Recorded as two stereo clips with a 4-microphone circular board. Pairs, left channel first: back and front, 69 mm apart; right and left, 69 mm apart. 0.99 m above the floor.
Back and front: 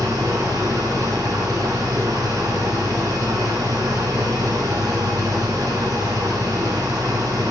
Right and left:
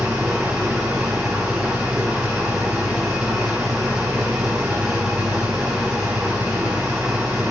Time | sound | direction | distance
0.0 | an engine running | 15° left | 5 m